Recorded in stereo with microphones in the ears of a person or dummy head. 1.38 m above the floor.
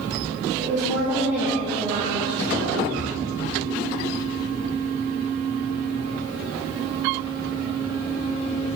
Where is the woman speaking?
5° right (ahead or behind), 1.7 m; by 2.8 s 35° right (ahead or behind), 0.8 m.